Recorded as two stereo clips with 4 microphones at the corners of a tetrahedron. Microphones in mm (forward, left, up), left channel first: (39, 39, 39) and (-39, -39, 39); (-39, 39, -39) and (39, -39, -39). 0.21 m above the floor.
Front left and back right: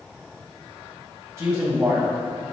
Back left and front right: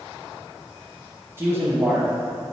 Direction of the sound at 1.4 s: 90° right.